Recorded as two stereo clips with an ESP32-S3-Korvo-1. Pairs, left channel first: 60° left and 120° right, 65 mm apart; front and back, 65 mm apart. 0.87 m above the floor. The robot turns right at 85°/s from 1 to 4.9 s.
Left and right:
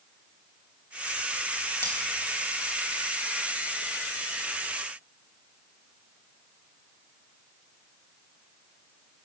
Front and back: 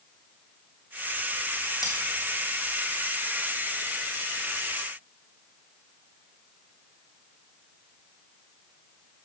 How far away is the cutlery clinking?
About 3 m.